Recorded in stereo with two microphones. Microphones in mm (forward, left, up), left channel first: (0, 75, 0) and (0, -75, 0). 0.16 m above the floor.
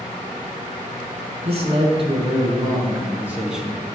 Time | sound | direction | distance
1.4 | a man speaking | 50° right (ahead or behind) | 1.5 m